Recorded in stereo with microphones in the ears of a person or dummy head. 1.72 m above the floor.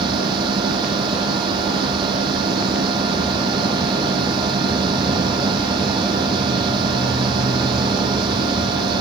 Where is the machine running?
20° right (ahead or behind).